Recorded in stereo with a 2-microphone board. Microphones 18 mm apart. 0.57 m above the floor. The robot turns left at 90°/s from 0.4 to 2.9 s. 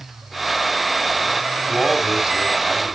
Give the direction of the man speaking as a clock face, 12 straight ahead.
1 o'clock.